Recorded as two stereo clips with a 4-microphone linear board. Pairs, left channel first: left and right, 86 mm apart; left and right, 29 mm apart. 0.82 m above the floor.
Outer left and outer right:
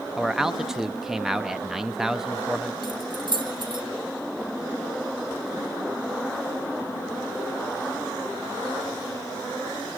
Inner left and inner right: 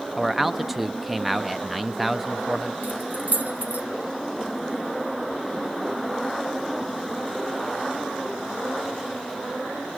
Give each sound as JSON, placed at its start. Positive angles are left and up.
{"t": 0.2, "sound": "a man speaking", "side_deg": -5, "distance_m": 0.9}
{"t": 2.8, "sound": "keys jangling", "side_deg": -65, "distance_m": 1.8}